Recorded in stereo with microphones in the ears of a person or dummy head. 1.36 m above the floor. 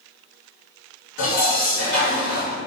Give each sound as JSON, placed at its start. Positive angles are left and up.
{"t": 1.2, "sound": "dishes clattering", "side_deg": 65, "distance_m": 1.1}